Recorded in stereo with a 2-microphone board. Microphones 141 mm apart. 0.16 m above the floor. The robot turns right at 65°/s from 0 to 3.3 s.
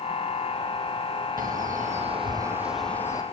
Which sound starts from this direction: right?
A bird, at 1.4 s.